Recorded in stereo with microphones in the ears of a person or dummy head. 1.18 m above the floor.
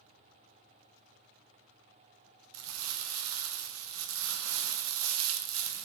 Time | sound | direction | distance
2.5 | crumpling | 80° right | 0.6 m